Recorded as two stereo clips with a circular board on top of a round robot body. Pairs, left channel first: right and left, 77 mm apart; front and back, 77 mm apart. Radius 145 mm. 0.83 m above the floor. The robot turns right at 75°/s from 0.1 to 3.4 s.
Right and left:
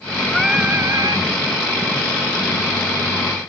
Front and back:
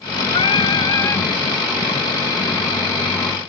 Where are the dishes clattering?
I don't hear dishes clattering.